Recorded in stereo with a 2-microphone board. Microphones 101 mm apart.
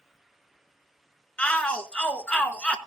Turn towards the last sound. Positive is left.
turn(degrees=10)  # may be behind; listen again after turning